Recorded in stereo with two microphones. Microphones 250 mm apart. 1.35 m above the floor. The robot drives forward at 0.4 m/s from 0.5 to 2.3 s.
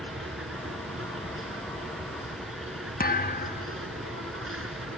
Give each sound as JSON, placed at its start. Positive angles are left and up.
{"t": 0.0, "sound": "an insect", "side_deg": -55}
{"t": 3.0, "sound": "a thud", "side_deg": 35}